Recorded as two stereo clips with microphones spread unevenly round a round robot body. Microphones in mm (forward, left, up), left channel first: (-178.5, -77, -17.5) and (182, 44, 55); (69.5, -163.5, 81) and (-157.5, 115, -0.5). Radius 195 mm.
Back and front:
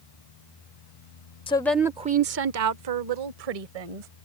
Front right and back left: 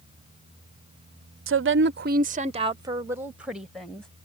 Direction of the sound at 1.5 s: 140° left.